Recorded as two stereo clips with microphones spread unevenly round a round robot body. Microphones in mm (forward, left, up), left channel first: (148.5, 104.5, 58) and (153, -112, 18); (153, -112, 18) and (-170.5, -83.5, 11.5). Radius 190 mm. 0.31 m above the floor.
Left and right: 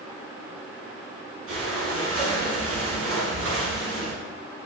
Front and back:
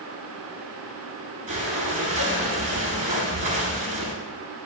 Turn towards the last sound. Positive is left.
turn(degrees=-115)